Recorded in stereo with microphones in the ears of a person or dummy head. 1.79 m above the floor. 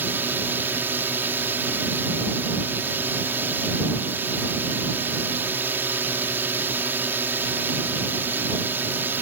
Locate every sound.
0.0 s a drone: 10° right (ahead or behind)